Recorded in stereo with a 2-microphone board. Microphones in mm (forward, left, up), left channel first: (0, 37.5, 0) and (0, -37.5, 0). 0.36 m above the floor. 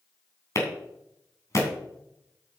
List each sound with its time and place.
0.6 s a clap: 45° left (ahead or behind), 3 m